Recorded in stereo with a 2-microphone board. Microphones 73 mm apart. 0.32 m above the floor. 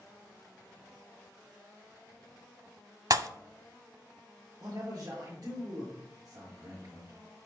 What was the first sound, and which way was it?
A pop, 55° right (ahead or behind).